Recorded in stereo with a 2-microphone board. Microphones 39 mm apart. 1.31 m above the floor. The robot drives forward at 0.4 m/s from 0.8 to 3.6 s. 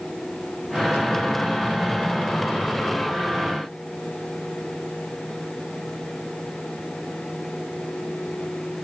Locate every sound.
Only background noise.